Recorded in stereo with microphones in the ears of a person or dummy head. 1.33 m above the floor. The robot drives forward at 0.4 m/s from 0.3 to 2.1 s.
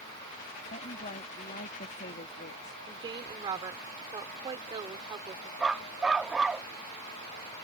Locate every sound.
0.7 s a woman speaking: 45° left (ahead or behind); by 2.8 s 55° left (ahead or behind)
2.9 s a woman speaking: 25° right (ahead or behind)
5.6 s a dog barking: 5° right (ahead or behind)